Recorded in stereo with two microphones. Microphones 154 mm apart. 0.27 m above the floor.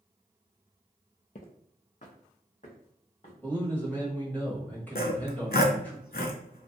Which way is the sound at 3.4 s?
10° left (ahead or behind).